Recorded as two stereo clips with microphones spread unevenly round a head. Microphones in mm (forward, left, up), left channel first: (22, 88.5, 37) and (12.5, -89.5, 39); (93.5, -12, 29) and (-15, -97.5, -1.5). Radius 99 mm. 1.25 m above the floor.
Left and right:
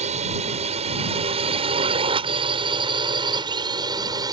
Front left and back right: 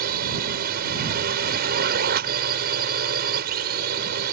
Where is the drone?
150° right; by 4.3 s 165° right.